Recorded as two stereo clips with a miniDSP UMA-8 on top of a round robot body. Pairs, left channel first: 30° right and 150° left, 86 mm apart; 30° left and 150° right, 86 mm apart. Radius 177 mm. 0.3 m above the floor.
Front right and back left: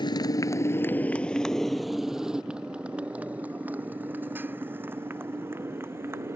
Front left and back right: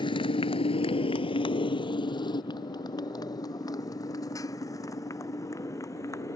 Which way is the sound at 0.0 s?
Straight ahead.